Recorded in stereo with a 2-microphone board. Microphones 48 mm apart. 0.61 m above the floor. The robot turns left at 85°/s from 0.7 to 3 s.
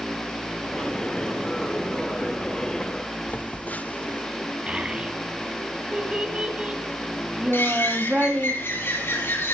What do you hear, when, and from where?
3.3 s a phone buzzing: 30° left (ahead or behind), 0.6 m
4.7 s a child speaking: 25° right (ahead or behind), 2.5 m
7.5 s a bird: 50° left (ahead or behind), 5.5 m